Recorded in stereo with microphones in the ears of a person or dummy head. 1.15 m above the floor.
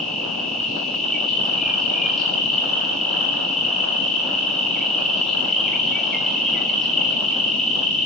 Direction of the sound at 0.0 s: Centre (ahead or behind).